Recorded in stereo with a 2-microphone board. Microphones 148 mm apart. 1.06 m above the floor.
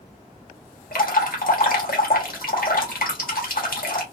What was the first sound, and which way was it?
Dripping, 75° left (ahead or behind).